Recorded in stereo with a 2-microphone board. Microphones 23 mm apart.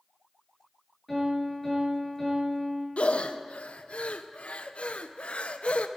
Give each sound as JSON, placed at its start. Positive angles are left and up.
{"t": 1.1, "sound": "a piano", "side_deg": 0, "distance_m": 8.0}
{"t": 3.0, "sound": "breathing", "side_deg": 70, "distance_m": 0.7}